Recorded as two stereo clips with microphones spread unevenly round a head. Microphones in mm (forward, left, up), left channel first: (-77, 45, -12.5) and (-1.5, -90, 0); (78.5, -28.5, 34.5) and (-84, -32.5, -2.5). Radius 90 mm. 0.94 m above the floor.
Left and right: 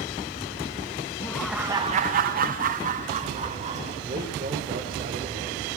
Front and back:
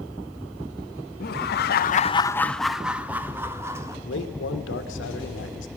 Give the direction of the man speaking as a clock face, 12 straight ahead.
12 o'clock.